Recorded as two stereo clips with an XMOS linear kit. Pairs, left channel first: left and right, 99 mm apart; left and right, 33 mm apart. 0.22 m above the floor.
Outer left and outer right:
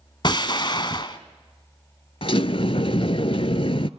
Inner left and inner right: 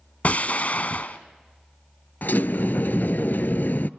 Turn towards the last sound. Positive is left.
turn(degrees=65)  # may be behind; listen again after turning